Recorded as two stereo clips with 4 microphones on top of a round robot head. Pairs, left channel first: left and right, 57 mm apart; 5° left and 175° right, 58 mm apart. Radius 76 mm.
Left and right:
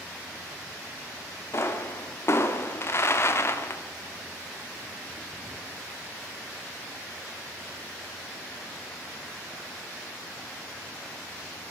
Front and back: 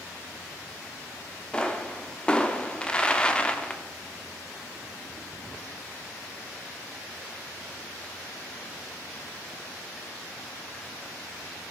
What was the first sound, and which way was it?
A pop, 75° left.